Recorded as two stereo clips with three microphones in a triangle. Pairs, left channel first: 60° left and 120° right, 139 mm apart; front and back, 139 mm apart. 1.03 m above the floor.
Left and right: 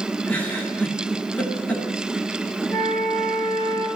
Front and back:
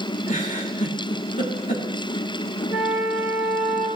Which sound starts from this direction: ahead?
A giggle, at 0.3 s.